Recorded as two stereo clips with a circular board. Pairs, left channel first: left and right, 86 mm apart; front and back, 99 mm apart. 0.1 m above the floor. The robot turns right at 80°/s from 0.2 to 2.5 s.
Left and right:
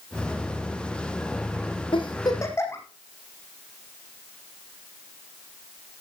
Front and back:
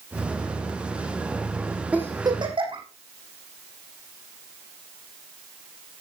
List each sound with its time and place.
1.9 s a giggle: 105° left, 3.5 m; by 2.8 s 150° left, 3.5 m